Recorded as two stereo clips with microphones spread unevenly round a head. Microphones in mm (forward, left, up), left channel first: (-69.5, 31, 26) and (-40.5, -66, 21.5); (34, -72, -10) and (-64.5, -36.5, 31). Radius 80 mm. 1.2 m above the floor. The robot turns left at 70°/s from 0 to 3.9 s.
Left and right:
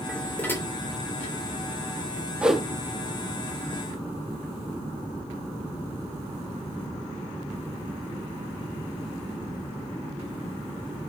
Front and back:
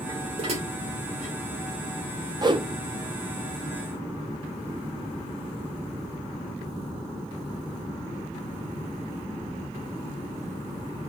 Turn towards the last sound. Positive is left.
turn(degrees=100)